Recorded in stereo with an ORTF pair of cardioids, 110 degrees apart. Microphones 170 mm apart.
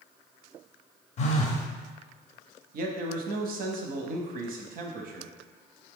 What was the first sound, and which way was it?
A phone buzzing, 45° left.